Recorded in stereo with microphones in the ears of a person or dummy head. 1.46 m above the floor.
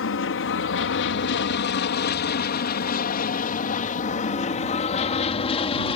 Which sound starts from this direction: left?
An aircraft, at 0.0 s.